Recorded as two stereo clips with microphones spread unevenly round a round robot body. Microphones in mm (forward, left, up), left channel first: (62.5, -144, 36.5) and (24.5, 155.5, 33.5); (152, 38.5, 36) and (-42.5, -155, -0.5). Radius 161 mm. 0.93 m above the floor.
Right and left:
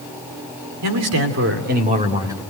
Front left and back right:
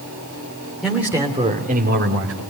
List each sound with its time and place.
0.8 s a man speaking: 135° left, 3 m; by 2.4 s straight behind, 2.5 m